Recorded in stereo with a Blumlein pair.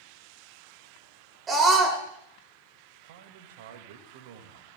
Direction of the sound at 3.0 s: 50° right.